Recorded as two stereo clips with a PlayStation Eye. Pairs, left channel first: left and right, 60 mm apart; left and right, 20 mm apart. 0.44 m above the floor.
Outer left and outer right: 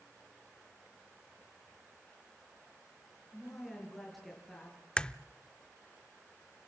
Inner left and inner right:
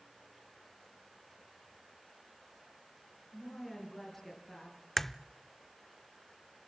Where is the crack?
15° left (ahead or behind), 0.5 m.